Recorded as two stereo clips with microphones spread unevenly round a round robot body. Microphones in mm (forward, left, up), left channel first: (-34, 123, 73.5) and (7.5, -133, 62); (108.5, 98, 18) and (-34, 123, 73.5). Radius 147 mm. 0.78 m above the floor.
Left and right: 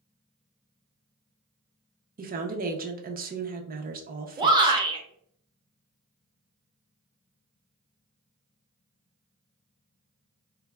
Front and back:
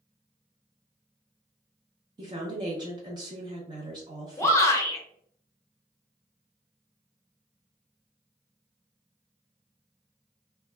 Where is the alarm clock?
I don't hear an alarm clock.